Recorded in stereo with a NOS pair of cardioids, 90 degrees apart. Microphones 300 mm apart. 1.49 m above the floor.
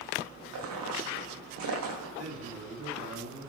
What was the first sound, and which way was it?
Footsteps, 70° right.